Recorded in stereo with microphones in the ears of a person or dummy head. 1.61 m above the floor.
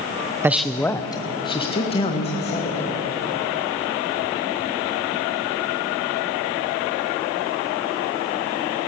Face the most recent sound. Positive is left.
turn(degrees=35)  # may be behind; listen again after turning